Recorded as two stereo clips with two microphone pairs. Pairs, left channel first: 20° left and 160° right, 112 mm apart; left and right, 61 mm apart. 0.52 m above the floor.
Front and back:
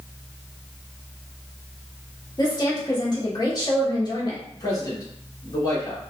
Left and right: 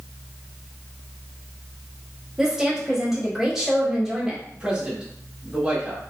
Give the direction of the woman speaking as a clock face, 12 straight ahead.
12 o'clock.